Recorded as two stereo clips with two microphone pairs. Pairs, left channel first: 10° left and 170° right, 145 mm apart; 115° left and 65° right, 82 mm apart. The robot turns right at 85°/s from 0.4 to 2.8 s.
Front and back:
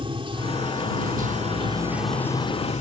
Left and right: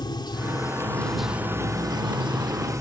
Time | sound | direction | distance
0.0 | running water | 140° left | ?